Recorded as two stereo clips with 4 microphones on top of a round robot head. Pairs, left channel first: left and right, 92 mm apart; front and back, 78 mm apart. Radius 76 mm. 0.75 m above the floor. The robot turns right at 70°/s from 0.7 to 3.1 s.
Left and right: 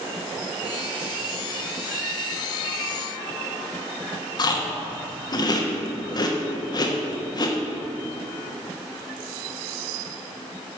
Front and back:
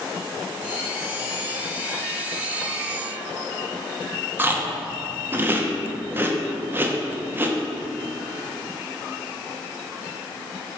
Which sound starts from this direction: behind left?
Chewing, at 4.4 s.